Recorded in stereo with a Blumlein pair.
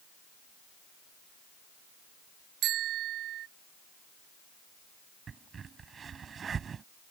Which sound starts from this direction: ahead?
A crack, at 5.3 s.